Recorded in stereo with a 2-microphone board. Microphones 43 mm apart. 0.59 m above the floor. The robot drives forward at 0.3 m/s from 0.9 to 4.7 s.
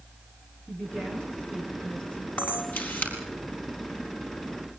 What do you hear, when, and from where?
0.7 s a woman speaking: 20° left (ahead or behind), 8 m; by 2.3 s 25° left (ahead or behind), 7.5 m
2.4 s a camera shutter: 45° left (ahead or behind), 4.5 m